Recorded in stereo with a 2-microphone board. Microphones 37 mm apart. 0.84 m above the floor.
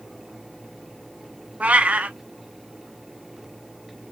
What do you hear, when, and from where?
1.6 s a cat meowing: 40° right (ahead or behind), 0.5 m